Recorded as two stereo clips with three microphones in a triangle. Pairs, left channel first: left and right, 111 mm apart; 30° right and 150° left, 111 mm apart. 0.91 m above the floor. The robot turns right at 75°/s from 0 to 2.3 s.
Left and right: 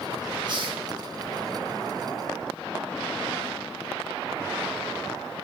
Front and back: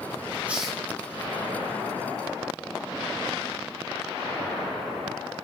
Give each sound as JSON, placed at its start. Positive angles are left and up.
{"t": 0.5, "sound": "a hiss", "azimuth_deg": -135, "distance_m": 1.4}